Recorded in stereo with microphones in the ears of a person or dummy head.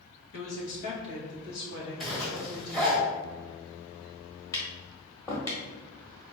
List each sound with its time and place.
0.3 s a woman speaking: 80° left, 1.9 m; by 3.0 s 45° left (ahead or behind), 3 m
2.0 s a zipper: 5° left (ahead or behind), 1.3 m
4.5 s tapping: 20° left (ahead or behind), 1.5 m